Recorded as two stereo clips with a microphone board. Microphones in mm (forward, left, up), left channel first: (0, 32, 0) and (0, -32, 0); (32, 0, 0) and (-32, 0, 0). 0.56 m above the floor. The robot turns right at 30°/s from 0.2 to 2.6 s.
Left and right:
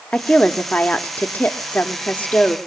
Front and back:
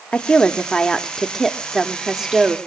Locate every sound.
0.1 s a woman speaking: 45° left, 0.8 m; by 2.6 s 120° left, 0.8 m